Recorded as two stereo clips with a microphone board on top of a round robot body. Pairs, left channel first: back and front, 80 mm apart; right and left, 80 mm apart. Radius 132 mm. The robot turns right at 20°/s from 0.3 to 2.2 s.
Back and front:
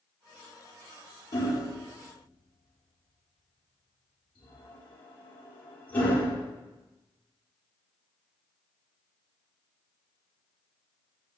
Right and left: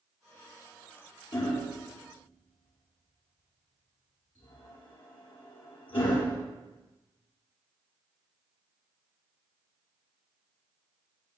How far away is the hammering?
About 5.5 m.